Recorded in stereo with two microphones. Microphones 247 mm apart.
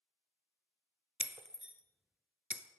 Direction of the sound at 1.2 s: 5° right (ahead or behind).